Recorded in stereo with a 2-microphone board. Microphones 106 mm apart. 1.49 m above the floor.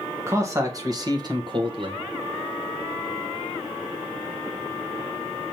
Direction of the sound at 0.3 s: 25° right (ahead or behind).